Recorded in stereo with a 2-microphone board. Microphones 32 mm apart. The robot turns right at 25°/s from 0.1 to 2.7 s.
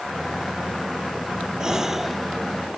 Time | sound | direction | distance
1.6 | a gasp | 25° right (ahead or behind) | ?